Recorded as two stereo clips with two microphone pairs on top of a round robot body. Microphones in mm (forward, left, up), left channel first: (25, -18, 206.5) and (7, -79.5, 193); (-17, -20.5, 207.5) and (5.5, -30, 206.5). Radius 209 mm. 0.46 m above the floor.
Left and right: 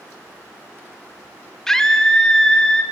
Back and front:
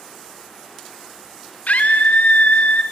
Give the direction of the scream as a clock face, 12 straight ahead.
7 o'clock.